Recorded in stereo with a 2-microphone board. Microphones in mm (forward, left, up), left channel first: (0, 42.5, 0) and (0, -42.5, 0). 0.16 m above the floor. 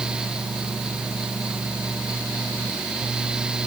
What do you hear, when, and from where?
Only background noise.